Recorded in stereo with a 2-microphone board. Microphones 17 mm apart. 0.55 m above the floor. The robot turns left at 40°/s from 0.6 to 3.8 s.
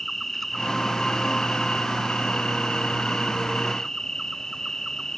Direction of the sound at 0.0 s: 170° left.